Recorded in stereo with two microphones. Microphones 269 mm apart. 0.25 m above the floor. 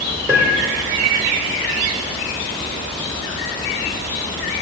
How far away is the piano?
About 3 m.